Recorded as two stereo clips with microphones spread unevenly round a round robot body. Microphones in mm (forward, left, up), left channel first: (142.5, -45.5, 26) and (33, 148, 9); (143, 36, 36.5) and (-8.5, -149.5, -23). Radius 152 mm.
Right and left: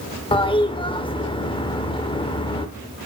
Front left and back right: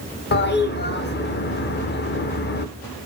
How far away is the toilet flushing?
About 1.1 m.